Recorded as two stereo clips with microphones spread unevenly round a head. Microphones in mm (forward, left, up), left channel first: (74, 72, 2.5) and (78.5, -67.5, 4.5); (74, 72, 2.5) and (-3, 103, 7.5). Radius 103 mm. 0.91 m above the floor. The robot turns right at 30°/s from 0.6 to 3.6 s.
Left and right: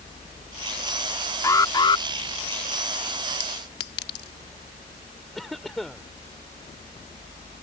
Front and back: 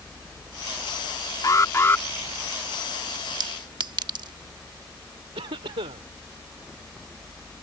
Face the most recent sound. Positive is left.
turn(degrees=180)